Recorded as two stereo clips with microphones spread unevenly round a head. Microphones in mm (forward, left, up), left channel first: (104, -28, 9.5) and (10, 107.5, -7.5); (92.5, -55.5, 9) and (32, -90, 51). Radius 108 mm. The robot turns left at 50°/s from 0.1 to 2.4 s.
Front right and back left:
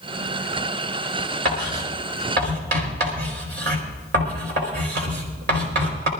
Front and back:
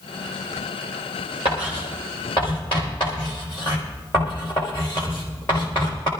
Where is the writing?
160° left, 4.5 m; by 6.1 s 110° left, 4.5 m.